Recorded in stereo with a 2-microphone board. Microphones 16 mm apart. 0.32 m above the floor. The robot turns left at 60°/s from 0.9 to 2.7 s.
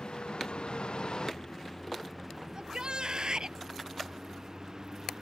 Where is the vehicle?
80° left; by 5.2 s 35° right (ahead or behind).